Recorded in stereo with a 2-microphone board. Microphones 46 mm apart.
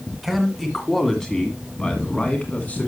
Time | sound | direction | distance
0.2 | a man speaking | centre (ahead or behind) | 1.7 m